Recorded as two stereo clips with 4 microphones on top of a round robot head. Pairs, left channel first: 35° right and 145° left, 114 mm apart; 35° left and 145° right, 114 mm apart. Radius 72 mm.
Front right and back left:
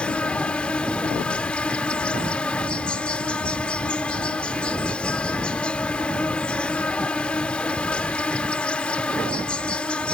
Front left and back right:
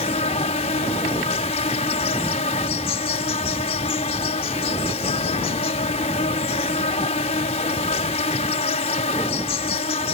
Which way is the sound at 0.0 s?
45° left.